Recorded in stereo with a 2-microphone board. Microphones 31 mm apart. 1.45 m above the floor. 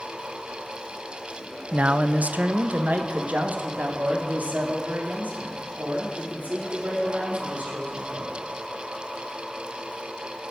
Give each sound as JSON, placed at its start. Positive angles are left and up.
{"t": 1.7, "sound": "a man speaking", "side_deg": -45, "distance_m": 0.5}